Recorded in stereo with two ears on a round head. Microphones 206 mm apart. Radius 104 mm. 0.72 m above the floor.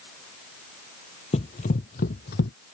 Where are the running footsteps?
30° left (ahead or behind); by 2.5 s 45° left (ahead or behind).